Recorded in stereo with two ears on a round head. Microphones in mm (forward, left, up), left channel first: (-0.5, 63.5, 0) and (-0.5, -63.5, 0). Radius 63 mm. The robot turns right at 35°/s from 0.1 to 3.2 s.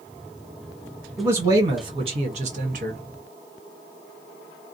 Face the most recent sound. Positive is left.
turn(degrees=-95)